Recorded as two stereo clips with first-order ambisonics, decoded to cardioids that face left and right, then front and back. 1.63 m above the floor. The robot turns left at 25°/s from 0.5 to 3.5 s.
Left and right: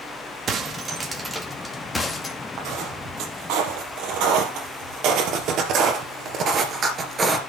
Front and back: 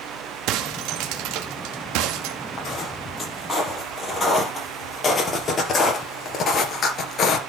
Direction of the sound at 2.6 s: 60° right.